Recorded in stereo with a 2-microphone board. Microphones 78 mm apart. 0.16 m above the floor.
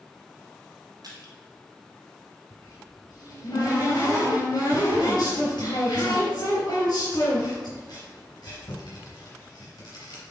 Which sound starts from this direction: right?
Crushing, at 1.0 s.